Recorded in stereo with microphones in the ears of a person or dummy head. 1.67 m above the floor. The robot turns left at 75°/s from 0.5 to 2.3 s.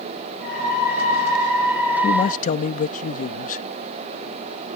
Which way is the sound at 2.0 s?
35° left (ahead or behind).